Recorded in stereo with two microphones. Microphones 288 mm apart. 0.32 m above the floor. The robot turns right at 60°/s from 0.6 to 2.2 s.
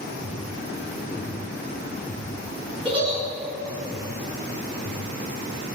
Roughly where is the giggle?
Right.